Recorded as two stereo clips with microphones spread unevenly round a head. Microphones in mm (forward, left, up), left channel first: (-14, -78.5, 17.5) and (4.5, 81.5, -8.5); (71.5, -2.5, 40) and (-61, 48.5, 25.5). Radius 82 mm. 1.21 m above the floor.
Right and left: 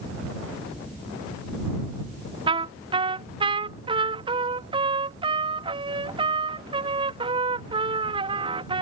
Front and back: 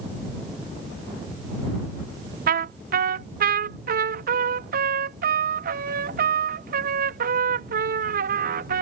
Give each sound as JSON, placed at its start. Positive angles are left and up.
{"t": 2.5, "sound": "a trumpet", "azimuth_deg": 145}